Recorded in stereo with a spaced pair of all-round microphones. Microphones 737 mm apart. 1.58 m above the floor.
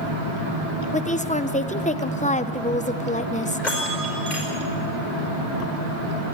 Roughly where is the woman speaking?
Centre.